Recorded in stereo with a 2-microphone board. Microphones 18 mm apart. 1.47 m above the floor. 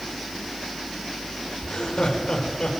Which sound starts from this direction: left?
Laughter, at 1.6 s.